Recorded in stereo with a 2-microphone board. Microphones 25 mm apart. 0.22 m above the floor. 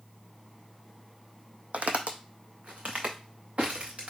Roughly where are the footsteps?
Right.